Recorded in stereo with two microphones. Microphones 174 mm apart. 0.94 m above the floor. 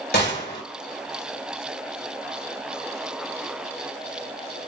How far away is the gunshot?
About 2 m.